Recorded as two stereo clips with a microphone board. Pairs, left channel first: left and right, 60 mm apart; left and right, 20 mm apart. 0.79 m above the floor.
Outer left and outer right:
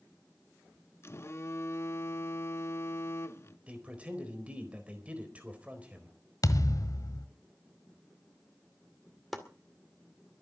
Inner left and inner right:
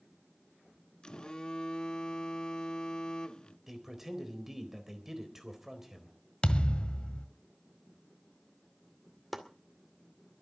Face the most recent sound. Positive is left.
turn(degrees=0)  # may be behind; listen again after turning